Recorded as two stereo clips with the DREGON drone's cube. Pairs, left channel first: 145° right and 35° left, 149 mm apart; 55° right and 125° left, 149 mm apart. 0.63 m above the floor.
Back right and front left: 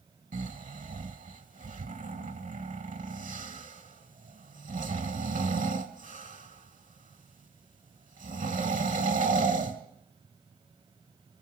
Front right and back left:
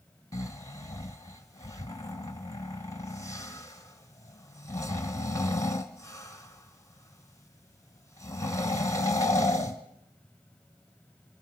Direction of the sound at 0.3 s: 10° left.